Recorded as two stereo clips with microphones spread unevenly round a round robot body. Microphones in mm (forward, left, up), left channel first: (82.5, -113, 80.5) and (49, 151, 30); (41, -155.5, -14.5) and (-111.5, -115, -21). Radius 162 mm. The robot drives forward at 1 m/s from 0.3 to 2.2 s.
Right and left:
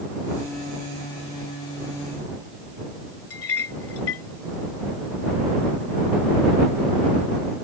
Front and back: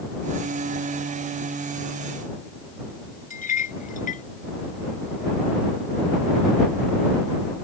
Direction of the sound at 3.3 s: 45° right.